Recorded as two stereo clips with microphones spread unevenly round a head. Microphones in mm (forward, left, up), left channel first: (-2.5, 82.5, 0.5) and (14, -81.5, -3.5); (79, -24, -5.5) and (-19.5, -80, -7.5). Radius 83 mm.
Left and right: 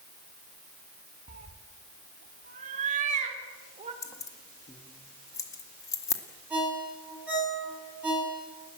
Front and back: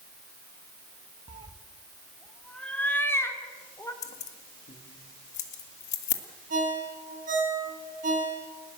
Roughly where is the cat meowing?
Behind right.